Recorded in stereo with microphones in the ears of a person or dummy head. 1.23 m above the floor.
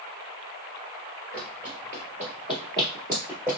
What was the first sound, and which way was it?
Running footsteps, 30° right (ahead or behind).